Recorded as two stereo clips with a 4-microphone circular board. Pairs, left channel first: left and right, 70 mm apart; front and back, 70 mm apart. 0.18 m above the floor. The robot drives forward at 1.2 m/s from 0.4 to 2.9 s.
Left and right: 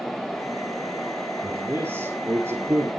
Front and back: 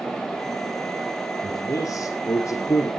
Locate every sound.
1.4 s a man speaking: 35° right, 5.5 m; by 2.9 s 45° right, 4.5 m